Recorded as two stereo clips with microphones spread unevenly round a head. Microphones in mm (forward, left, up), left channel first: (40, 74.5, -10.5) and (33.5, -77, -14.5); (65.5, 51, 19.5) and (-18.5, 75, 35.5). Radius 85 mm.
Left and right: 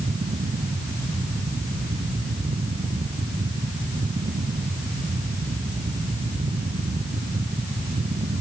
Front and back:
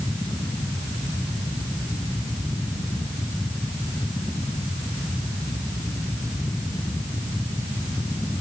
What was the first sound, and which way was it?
Only background noise.